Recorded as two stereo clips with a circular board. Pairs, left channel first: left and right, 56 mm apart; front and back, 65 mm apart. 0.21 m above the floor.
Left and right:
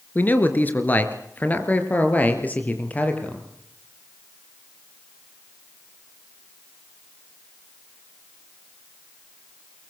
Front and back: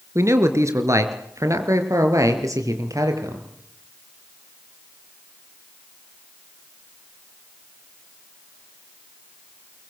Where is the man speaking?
140° left, 3.5 m; by 3.5 s 150° left, 6 m.